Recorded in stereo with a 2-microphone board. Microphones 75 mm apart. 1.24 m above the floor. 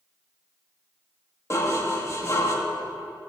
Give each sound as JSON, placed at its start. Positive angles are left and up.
{"t": 1.5, "sound": "dishes clattering", "side_deg": 40, "distance_m": 1.4}